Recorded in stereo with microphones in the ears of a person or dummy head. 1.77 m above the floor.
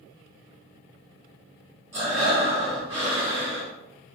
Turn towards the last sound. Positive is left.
turn(degrees=-20)  # may be behind; listen again after turning